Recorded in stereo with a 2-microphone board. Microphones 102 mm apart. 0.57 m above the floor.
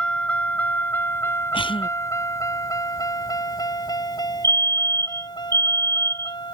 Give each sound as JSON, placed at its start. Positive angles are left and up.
{"t": 0.0, "sound": "a vehicle", "side_deg": 10}
{"t": 1.5, "sound": "a cough", "side_deg": 60}
{"t": 4.4, "sound": "a fire alarm", "side_deg": -40}